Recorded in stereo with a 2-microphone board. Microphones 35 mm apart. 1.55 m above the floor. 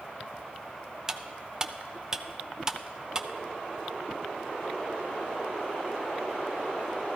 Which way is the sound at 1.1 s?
20° right (ahead or behind).